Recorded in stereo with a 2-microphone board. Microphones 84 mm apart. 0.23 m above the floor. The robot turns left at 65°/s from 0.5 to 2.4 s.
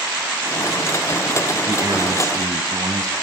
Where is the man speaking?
60° right, 1.3 m; by 3.1 s 105° right, 1.3 m.